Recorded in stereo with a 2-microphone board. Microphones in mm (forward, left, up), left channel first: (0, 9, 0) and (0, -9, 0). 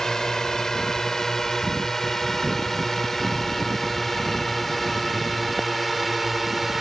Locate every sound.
0.0 s a drone: 35° left (ahead or behind); by 6.8 s 5° right (ahead or behind)